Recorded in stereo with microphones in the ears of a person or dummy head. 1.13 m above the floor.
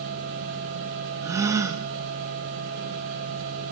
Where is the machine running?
65° right (ahead or behind), 4.5 m.